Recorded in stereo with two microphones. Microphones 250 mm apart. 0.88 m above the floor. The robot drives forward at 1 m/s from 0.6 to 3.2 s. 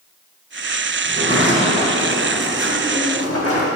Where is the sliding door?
40° left (ahead or behind), 2.5 m; by 3.7 s 75° left (ahead or behind), 1.7 m.